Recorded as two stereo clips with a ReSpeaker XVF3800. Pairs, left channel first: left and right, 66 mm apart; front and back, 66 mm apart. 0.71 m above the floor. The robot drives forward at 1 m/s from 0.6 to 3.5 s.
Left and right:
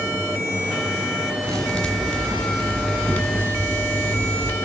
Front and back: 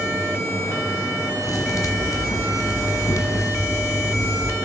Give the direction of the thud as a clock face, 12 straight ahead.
12 o'clock.